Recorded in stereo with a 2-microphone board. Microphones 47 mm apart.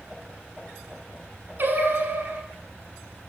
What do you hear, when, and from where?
1.6 s singing: 50° right (ahead or behind), 1.0 m